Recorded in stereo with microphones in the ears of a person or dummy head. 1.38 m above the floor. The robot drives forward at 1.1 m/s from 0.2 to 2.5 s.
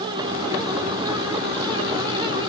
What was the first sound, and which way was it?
Only background noise.